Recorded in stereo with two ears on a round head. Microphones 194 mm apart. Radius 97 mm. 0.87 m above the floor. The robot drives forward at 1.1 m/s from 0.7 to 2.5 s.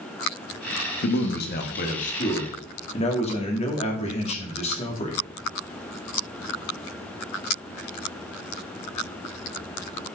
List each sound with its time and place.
1.0 s a man speaking: 55° left (ahead or behind), 1.4 m; by 5.2 s 30° left (ahead or behind), 2.5 m